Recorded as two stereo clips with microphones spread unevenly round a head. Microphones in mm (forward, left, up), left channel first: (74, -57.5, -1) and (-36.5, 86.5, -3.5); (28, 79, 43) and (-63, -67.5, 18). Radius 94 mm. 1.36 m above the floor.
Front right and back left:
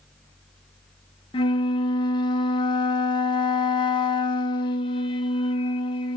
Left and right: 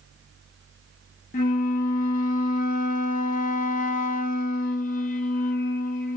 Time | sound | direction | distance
1.3 | a flute | 10° left | 0.7 m